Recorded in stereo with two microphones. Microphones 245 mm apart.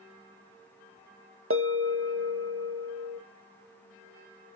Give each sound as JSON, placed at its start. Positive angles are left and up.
{"t": 1.5, "sound": "a bell", "side_deg": -60, "distance_m": 1.2}